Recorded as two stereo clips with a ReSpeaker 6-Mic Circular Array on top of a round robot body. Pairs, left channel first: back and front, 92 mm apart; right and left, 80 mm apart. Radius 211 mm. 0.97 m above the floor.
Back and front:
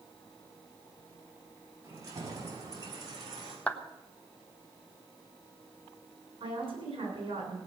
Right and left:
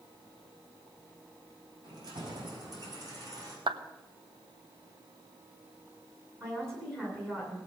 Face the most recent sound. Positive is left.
turn(degrees=30)